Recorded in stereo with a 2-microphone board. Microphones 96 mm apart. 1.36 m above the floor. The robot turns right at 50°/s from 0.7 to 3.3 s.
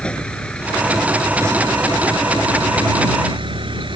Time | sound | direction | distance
0.0 | a vehicle | 170° left | ?